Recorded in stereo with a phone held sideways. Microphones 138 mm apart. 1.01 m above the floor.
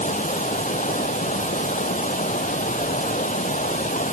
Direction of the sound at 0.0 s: 65° left (ahead or behind).